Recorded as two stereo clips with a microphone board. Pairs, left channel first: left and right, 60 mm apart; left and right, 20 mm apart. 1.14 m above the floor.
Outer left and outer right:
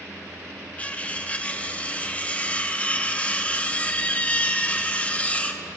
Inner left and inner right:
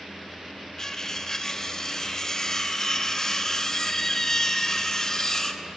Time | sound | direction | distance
0.8 | cutlery clinking | 25° left (ahead or behind) | 0.7 m